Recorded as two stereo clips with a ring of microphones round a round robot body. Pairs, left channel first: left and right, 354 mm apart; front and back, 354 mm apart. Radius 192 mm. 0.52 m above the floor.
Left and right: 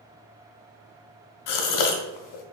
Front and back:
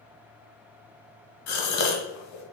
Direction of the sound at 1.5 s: 55° left.